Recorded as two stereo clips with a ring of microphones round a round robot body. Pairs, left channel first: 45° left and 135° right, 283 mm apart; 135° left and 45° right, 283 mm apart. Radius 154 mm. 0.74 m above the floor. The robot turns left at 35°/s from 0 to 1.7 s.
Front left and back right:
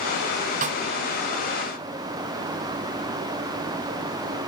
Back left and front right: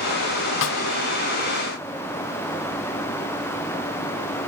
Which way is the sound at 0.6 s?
170° left.